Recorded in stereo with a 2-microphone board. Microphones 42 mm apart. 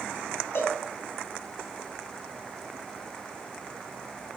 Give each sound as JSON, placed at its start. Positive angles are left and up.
{"t": 0.6, "sound": "a cowbell", "side_deg": 60, "distance_m": 1.5}